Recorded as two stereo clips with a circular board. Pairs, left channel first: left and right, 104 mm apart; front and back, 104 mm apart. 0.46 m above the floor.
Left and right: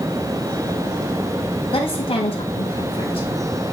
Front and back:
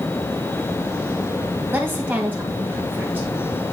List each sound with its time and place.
1.7 s a woman speaking: 110° left, 2 m